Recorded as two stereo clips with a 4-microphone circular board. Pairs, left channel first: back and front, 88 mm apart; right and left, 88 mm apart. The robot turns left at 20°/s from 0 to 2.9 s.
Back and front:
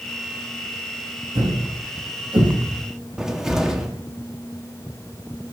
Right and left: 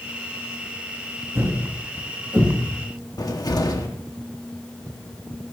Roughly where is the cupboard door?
Right.